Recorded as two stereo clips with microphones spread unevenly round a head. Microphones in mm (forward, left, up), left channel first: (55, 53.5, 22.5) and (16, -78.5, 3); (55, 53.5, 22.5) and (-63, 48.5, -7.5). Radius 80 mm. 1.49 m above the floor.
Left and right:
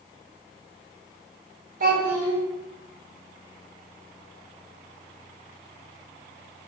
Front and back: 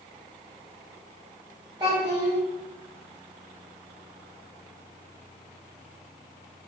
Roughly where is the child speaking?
Right.